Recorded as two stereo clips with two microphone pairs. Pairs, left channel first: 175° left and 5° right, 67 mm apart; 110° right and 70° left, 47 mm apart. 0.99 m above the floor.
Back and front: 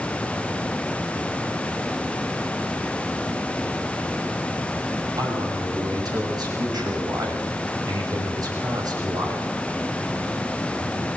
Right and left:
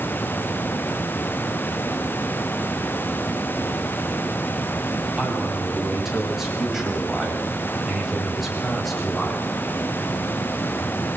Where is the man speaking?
10° right, 7.5 m; by 9.5 s 20° right, 5 m.